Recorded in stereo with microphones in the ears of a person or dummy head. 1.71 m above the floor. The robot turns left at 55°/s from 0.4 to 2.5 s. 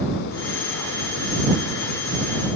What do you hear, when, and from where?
Only background noise.